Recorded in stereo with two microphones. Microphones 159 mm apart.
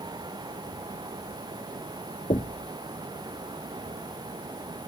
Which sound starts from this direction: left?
Knocking, at 2.3 s.